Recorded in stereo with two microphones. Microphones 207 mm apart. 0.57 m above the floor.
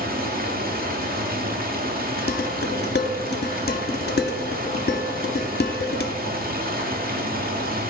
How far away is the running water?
About 1.1 m.